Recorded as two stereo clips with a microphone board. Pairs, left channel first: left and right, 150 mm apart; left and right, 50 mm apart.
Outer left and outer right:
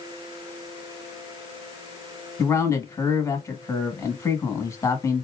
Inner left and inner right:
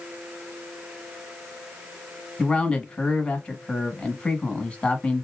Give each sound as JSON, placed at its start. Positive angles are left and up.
{"t": 2.4, "sound": "a man speaking", "side_deg": 20, "distance_m": 1.1}